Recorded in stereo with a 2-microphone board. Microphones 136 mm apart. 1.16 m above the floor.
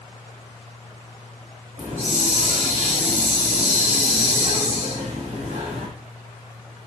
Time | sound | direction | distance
1.8 | a hiss | 85° right | 3.5 m